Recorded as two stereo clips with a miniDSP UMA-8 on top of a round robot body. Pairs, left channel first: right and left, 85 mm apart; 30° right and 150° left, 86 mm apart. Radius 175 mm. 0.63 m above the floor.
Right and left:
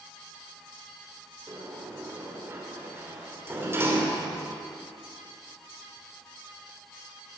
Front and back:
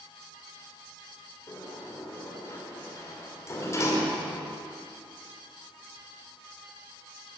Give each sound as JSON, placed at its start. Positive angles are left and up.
{"t": 1.5, "sound": "a sliding door", "azimuth_deg": 25, "distance_m": 2.5}